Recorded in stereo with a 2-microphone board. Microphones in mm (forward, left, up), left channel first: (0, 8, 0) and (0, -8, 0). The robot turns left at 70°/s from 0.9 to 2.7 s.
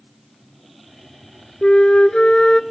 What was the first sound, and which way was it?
A flute, 100° left.